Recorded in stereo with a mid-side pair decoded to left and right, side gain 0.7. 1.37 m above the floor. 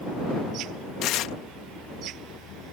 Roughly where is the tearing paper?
Ahead left.